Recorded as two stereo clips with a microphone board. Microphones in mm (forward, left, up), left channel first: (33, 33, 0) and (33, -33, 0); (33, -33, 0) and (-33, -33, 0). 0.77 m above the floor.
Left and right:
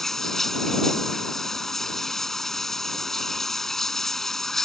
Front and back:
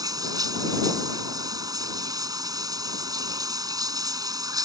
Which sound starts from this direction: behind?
Running water, at 0.0 s.